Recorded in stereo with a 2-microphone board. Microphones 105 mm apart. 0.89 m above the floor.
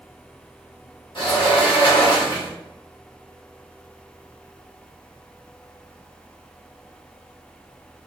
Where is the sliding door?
55° left (ahead or behind), 1.5 m.